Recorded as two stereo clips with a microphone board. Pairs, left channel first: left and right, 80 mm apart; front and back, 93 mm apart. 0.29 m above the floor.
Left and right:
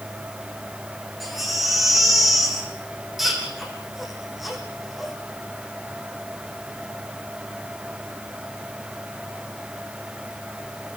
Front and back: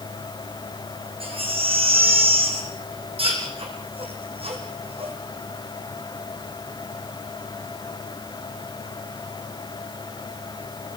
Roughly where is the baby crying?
Behind.